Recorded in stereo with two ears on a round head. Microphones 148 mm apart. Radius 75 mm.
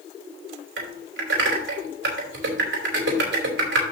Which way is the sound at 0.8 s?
75° right (ahead or behind).